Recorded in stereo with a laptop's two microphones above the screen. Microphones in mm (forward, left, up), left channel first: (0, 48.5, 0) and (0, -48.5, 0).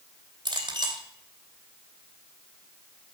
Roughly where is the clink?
Right.